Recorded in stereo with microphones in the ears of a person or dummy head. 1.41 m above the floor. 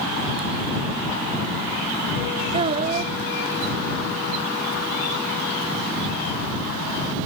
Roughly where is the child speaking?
Right.